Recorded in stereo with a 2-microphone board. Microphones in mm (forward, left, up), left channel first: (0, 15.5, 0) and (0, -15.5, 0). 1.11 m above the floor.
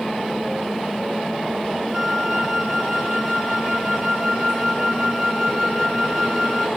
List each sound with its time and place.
1.9 s a flute: 10° left (ahead or behind), 1.6 m